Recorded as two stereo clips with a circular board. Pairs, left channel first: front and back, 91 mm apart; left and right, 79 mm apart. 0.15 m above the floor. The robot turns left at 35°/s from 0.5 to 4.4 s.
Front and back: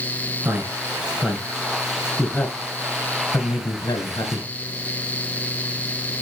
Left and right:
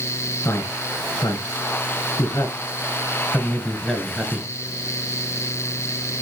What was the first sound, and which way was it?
A man speaking, 125° left.